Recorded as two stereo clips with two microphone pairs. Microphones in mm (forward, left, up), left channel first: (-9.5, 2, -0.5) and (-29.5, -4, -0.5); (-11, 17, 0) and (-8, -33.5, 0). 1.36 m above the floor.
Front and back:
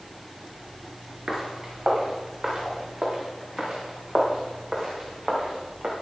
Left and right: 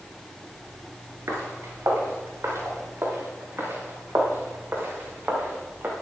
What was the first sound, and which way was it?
Footsteps, 100° right.